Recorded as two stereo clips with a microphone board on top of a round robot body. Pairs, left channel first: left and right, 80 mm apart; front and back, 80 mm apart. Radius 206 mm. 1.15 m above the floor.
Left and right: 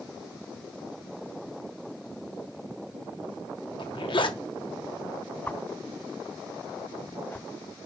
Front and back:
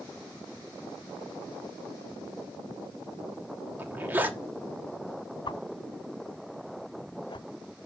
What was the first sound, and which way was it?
A zipper, 110° left.